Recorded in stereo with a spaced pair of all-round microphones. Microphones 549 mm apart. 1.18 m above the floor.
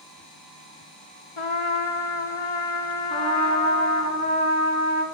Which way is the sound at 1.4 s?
60° left (ahead or behind).